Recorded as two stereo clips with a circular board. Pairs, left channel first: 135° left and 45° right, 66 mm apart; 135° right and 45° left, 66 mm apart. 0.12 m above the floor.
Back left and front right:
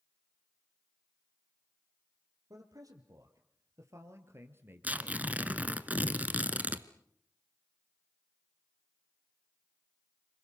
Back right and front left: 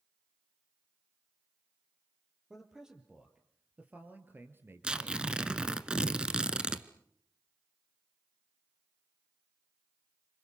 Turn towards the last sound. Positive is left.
turn(degrees=-15)